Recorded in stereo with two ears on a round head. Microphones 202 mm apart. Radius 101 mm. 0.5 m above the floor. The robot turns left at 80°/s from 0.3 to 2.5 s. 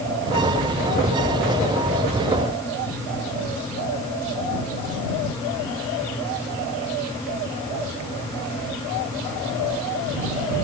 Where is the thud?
I don't hear a thud.